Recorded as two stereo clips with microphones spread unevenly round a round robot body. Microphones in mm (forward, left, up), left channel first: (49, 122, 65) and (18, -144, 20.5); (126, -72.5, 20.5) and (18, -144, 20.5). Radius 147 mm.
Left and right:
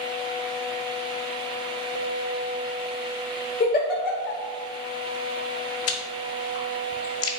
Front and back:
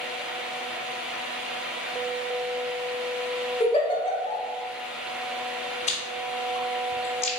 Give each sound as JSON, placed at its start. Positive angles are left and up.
{"t": 3.6, "sound": "a giggle", "azimuth_deg": 35, "distance_m": 1.2}
{"t": 5.9, "sound": "chewing", "azimuth_deg": 55, "distance_m": 0.8}